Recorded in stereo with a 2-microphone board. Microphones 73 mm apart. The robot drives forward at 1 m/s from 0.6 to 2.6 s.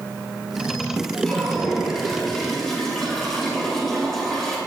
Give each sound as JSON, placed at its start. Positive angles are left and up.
{"t": 1.2, "sound": "a toilet flushing", "side_deg": 10, "distance_m": 3.5}